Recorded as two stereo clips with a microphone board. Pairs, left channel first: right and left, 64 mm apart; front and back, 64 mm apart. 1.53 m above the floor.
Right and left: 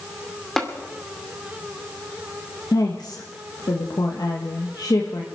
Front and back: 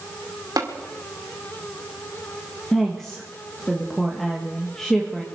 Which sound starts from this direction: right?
A woman speaking, at 2.7 s.